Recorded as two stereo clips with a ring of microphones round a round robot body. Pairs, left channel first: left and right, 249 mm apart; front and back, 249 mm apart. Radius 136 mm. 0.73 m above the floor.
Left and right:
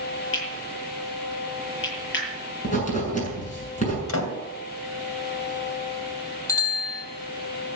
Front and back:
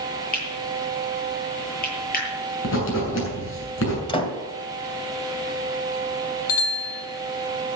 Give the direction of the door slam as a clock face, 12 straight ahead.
10 o'clock.